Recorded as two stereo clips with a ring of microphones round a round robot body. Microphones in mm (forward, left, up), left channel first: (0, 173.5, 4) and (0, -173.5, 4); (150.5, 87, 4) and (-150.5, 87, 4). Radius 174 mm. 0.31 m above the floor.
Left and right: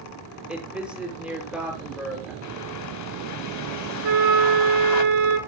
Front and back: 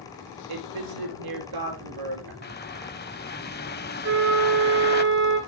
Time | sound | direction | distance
0.5 | a woman speaking | 175° right | 5.5 m
2.4 | a bird | 55° left | 1.3 m
4.0 | a flute | 120° right | 2.5 m